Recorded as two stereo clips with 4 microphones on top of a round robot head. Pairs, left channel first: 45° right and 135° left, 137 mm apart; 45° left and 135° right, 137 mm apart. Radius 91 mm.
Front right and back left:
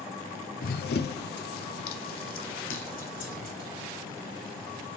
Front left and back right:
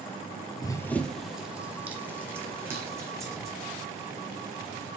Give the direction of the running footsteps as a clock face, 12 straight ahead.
1 o'clock.